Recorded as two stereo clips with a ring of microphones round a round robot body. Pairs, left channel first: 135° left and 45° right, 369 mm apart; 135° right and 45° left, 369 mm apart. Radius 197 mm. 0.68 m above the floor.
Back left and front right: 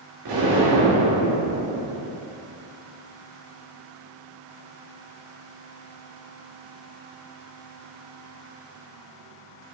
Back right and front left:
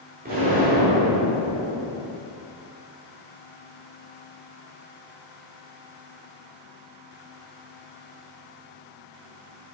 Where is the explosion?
20° right, 2.0 m.